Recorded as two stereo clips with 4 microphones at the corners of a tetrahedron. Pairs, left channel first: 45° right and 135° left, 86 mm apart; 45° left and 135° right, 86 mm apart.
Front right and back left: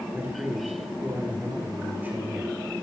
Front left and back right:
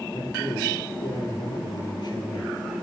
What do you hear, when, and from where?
0.1 s a man speaking: 70° left, 4 m